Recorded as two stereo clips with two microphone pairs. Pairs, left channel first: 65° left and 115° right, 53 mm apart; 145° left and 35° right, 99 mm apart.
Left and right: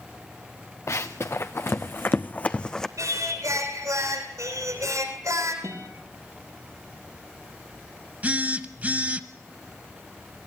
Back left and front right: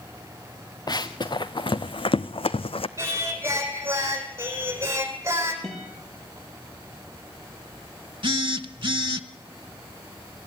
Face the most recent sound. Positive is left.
turn(degrees=-60)